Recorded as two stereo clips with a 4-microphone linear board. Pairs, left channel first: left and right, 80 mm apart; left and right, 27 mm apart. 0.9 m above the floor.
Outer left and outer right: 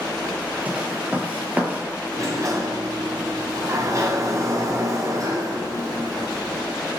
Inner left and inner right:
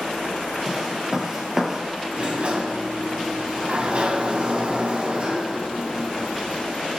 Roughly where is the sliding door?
Right.